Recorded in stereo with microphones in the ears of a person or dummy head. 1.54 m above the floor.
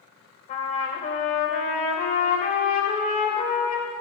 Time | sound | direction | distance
0.5 | a trumpet | 40° left (ahead or behind) | 2.5 m